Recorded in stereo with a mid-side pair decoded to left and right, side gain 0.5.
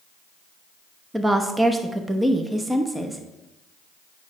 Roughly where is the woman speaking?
Ahead.